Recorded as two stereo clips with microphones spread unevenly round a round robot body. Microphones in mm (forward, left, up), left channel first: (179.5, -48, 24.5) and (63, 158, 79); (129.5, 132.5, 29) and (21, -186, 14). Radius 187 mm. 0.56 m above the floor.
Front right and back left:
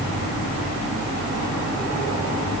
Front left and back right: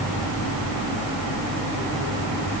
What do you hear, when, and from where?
Only background noise.